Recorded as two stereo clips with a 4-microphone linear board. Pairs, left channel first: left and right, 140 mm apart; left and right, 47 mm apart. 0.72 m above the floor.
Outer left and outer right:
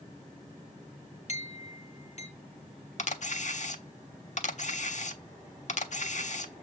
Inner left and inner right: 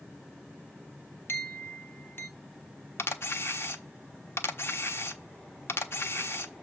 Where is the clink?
50° left (ahead or behind), 1.6 m.